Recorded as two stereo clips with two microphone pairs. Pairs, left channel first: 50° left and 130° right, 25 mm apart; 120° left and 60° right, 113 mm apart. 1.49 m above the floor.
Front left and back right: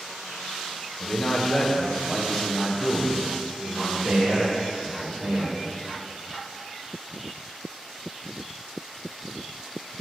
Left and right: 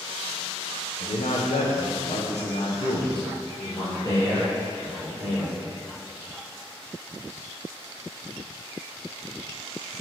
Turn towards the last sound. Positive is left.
turn(degrees=-170)